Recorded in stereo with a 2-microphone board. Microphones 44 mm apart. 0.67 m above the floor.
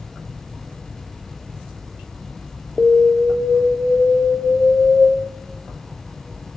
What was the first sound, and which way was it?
An alarm, centre (ahead or behind).